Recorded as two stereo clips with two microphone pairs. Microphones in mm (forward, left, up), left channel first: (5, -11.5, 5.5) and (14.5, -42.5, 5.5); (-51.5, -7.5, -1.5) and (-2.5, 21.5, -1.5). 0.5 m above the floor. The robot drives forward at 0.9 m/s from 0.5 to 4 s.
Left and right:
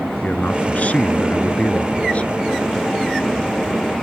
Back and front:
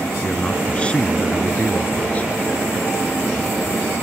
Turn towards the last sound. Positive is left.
turn(degrees=150)